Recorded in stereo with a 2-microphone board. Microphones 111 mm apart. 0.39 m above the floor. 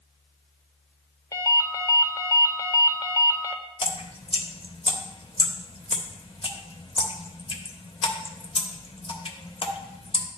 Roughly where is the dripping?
Left.